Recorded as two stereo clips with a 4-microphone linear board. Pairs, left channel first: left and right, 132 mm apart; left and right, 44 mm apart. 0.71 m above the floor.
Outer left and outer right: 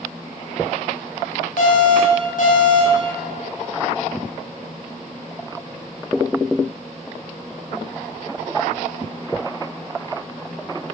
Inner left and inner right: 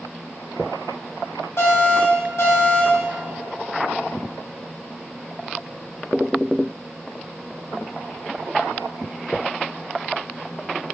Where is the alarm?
80° left, 5 m.